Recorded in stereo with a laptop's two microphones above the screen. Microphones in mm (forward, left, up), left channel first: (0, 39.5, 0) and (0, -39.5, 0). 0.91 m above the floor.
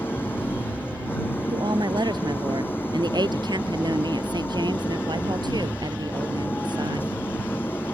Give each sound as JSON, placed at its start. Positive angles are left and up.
{"t": 0.0, "sound": "an engine running", "side_deg": 25}
{"t": 1.5, "sound": "a woman speaking", "side_deg": -65}